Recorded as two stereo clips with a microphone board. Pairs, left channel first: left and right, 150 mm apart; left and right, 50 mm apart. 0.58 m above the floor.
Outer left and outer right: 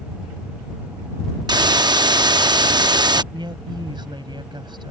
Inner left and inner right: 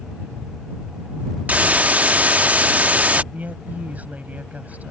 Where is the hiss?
25° right (ahead or behind).